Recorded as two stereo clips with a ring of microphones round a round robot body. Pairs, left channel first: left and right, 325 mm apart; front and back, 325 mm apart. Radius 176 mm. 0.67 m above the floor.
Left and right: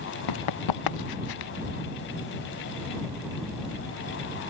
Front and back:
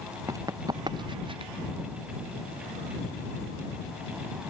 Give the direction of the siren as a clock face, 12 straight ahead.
I don't hear a siren.